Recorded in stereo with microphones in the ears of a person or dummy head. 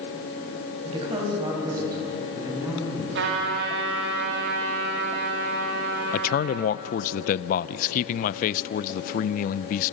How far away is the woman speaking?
About 5.5 m.